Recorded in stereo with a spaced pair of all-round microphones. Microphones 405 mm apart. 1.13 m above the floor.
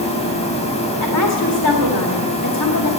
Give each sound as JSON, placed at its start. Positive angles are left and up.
{"t": 0.0, "sound": "a machine running", "side_deg": 15, "distance_m": 3.5}
{"t": 1.0, "sound": "a woman speaking", "side_deg": 60, "distance_m": 1.9}